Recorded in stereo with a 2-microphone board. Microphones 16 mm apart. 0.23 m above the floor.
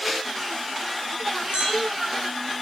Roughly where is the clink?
Right.